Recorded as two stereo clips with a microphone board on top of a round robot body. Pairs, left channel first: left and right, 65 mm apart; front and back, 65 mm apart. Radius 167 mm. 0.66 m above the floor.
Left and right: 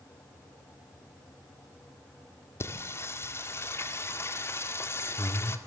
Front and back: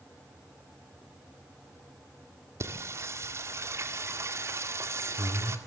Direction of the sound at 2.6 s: 135° left.